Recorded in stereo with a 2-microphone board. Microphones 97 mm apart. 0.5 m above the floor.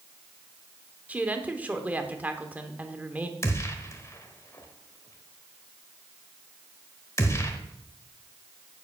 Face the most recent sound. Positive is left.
turn(degrees=30)  # may be behind; listen again after turning